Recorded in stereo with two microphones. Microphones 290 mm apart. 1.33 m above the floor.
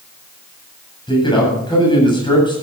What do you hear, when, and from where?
1.1 s a man speaking: 15° left (ahead or behind), 8.5 m